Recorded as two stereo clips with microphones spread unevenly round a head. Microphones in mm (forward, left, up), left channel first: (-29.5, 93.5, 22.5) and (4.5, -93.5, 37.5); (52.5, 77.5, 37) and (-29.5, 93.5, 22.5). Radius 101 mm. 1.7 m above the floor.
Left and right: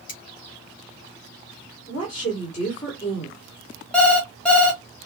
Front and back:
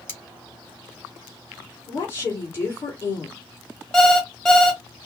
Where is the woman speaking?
45° left, 1.9 m.